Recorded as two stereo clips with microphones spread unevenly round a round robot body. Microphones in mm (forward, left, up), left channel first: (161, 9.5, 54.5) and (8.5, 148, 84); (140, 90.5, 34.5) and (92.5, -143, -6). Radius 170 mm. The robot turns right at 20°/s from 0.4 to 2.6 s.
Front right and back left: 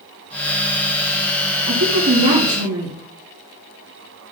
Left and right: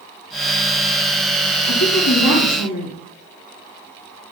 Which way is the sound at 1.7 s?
125° left.